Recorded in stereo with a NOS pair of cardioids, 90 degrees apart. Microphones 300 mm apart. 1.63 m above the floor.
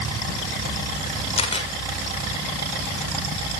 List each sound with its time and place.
1.4 s a camera shutter: 20° left, 7.5 m